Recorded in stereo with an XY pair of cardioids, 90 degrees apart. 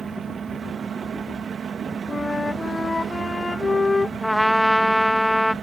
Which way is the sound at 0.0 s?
55° right.